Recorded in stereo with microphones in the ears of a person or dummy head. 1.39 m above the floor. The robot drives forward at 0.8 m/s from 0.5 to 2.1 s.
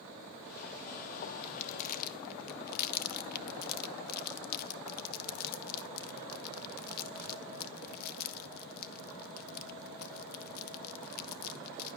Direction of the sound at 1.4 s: 30° left (ahead or behind).